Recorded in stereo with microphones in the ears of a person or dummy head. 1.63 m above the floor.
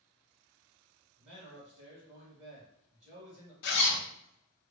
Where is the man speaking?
40° right (ahead or behind), 2 m.